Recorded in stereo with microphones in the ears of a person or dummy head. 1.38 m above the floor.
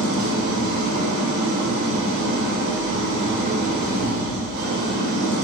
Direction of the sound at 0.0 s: 65° right (ahead or behind).